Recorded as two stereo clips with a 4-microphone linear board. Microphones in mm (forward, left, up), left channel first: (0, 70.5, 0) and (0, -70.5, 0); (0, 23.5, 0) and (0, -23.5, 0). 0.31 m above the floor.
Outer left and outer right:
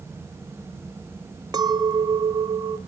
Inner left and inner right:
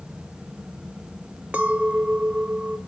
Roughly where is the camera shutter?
I don't hear a camera shutter.